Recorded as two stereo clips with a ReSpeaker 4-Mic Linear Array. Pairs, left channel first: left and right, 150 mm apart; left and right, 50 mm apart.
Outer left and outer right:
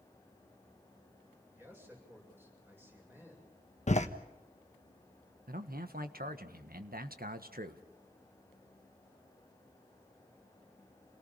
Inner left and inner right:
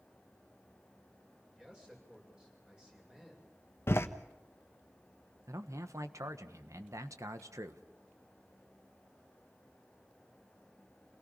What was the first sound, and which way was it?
A man speaking, 15° right (ahead or behind).